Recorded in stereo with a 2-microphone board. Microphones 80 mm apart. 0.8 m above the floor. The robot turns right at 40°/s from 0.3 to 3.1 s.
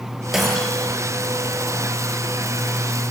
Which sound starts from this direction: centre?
Breaking glass, at 0.3 s.